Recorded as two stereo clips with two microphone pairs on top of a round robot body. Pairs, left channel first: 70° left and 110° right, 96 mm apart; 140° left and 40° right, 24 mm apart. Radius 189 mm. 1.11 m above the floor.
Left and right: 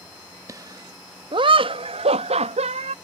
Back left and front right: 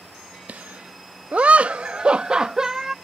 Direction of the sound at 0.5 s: 55° right.